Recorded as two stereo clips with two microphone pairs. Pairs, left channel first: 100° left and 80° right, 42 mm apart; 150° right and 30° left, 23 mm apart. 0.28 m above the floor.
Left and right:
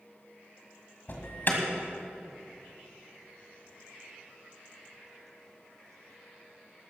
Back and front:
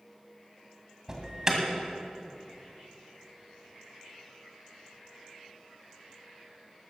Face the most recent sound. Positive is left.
turn(degrees=90)